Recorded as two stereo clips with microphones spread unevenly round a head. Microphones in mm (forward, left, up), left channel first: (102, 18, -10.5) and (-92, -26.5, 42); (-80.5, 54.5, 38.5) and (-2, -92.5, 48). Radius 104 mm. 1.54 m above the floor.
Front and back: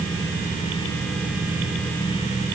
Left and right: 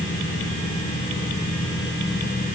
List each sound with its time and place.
Only background noise.